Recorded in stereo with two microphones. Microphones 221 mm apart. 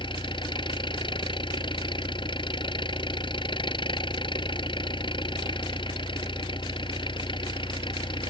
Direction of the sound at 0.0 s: 20° left (ahead or behind).